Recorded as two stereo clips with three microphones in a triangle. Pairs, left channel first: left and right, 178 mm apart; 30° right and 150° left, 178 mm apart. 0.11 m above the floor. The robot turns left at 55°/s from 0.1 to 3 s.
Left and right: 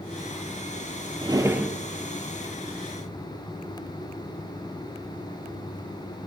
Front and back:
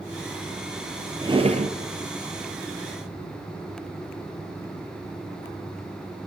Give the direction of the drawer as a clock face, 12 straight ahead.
5 o'clock.